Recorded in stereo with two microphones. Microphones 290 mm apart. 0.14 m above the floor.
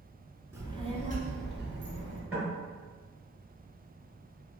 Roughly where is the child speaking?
Centre.